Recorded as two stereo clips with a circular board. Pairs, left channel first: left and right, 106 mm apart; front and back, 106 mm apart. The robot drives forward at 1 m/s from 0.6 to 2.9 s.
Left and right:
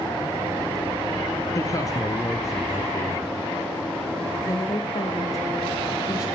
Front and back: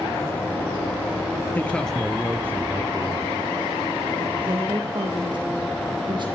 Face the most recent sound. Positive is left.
turn(degrees=140)